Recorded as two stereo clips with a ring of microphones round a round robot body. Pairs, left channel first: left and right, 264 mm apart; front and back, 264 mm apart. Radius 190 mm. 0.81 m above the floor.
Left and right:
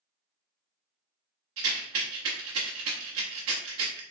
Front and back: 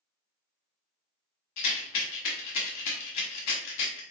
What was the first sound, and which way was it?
A rattle, 40° right.